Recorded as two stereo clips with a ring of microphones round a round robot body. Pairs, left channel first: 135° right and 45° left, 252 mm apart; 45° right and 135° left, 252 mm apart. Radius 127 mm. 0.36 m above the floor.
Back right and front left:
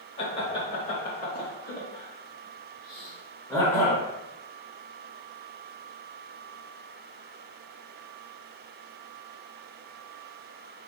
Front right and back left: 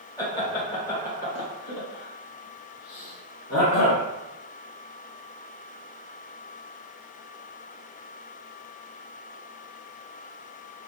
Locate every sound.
0.2 s laughter: 100° right, 1.4 m; by 4.0 s 50° right, 2.5 m